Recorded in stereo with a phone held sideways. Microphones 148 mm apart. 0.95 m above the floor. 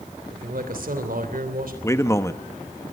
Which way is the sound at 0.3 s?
75° right (ahead or behind).